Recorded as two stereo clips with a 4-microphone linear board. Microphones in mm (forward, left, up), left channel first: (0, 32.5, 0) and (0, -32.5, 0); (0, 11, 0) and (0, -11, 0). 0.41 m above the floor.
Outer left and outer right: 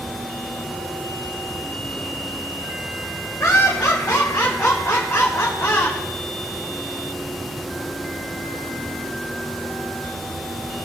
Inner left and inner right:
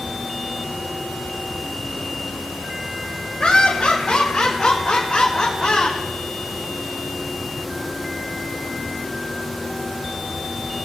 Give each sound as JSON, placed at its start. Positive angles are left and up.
{"t": 3.4, "sound": "laughter", "side_deg": 45, "distance_m": 2.5}